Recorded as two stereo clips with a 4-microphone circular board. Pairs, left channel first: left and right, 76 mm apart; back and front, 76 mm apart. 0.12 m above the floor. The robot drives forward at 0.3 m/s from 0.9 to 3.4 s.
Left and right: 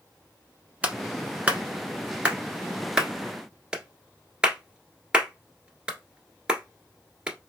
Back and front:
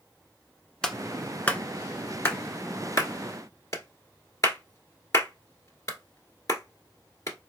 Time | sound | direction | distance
0.8 | a clap | 120° right | 0.9 m